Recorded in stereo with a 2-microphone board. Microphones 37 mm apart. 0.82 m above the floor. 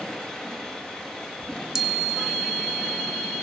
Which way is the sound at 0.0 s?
15° left (ahead or behind).